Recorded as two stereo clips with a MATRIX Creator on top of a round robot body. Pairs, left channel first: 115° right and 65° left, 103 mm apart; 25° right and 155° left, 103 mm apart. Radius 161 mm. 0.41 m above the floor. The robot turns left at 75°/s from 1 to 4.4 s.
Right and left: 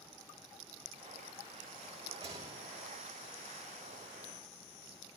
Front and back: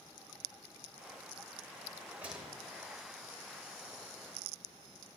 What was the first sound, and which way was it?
A rattle, 95° left.